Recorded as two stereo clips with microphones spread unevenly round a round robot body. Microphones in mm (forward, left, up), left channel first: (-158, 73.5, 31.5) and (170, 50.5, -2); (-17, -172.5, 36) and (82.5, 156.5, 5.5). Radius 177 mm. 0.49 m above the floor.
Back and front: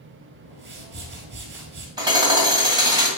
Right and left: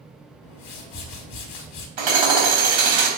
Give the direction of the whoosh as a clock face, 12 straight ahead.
2 o'clock.